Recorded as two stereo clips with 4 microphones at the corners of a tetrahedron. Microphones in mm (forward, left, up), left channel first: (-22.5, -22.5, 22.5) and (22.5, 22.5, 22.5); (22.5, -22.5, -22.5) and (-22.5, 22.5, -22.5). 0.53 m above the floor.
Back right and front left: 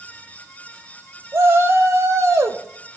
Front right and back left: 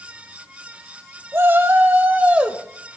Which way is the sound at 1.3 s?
85° left.